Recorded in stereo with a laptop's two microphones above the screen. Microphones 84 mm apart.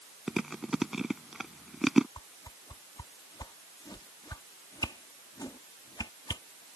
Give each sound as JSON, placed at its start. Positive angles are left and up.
{"t": 0.3, "sound": "chewing", "side_deg": -5}
{"t": 2.2, "sound": "a whoosh", "side_deg": 50}